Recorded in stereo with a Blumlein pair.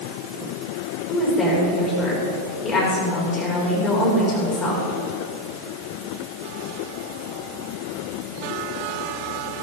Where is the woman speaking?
20° left, 6.5 m.